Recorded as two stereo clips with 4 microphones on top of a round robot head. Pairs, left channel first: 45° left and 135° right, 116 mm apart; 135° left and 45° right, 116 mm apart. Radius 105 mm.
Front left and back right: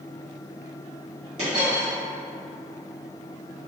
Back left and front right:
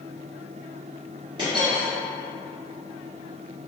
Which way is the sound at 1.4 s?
100° right.